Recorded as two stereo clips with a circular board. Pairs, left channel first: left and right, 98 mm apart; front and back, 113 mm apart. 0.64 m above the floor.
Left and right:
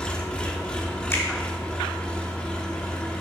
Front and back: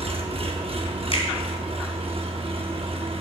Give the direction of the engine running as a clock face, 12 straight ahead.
6 o'clock.